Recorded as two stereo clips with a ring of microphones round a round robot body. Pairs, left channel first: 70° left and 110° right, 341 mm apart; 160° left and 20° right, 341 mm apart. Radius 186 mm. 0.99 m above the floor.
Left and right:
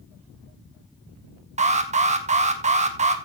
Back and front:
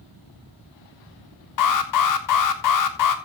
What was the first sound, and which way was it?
An alarm, straight behind.